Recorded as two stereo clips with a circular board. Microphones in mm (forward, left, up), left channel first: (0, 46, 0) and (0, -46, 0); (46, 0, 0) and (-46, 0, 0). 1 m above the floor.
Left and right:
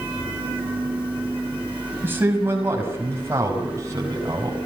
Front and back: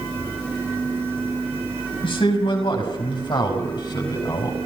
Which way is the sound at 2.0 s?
20° right.